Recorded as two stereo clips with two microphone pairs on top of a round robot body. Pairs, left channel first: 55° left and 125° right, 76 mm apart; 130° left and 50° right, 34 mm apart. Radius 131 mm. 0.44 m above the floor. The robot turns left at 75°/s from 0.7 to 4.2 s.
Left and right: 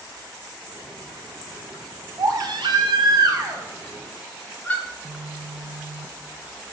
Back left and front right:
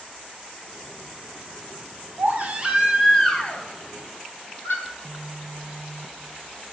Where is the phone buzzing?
65° right, 0.7 m.